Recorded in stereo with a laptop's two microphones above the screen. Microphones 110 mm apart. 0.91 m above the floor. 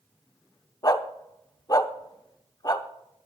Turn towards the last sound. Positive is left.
turn(degrees=35)  # may be behind; listen again after turning